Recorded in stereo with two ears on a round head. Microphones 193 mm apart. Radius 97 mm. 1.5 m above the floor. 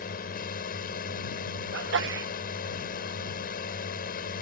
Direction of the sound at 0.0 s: 45° left (ahead or behind).